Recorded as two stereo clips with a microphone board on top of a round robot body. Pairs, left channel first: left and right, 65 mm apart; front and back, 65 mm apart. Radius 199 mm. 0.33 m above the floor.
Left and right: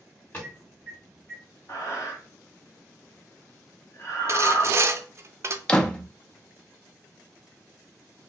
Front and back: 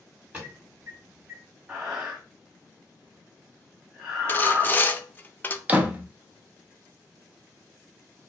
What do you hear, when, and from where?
0.3 s an alarm: 130° left, 2 m
1.7 s breathing: 110° left, 1.5 m
4.3 s sawing: 60° right, 0.6 m
5.7 s a door slam: 150° left, 0.7 m